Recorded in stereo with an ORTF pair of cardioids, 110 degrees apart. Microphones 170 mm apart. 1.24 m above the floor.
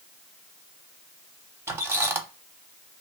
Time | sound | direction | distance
1.7 | a squeak | 15° right | 0.7 m